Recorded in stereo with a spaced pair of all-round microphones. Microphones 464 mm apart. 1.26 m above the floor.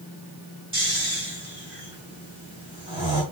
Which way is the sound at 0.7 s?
10° right (ahead or behind).